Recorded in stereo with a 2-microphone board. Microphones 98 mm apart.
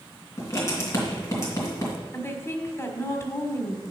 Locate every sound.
0.4 s writing: 30° left (ahead or behind), 3 m
2.1 s a woman speaking: 30° left (ahead or behind), 1.5 m